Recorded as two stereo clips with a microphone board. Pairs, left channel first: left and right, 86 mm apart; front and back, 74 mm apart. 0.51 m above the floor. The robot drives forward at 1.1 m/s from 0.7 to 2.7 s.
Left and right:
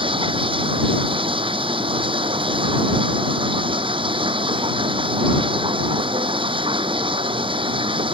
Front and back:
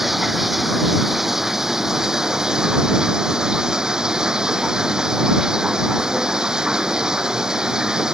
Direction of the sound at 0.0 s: 95° right.